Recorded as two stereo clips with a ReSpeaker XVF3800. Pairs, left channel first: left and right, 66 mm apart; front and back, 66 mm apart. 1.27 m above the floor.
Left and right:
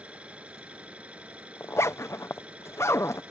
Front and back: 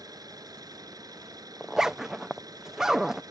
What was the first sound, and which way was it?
An engine running, 160° right.